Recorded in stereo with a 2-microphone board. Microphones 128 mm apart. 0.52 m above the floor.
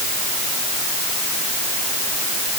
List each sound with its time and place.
Only background noise.